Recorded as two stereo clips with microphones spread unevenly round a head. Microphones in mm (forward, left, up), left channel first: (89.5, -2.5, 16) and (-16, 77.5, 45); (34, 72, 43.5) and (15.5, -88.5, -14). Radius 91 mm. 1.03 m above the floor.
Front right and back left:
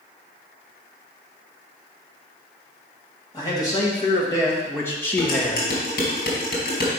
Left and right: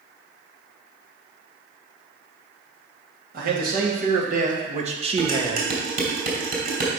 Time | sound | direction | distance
3.3 | a man speaking | 100° right | 2 m
5.2 | dishes clattering | 60° right | 3 m